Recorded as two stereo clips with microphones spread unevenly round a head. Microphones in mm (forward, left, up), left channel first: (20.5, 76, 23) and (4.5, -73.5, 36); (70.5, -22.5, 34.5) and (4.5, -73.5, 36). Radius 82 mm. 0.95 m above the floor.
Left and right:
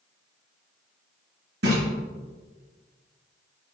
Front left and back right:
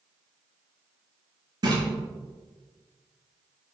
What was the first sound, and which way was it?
A splash, 110° right.